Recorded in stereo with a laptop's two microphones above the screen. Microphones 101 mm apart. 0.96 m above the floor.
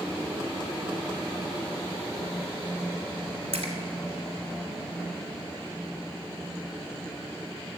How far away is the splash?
About 1.5 m.